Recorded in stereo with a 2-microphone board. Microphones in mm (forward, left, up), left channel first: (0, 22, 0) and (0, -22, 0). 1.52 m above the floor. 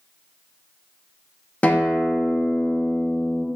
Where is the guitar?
35° left (ahead or behind), 0.7 m.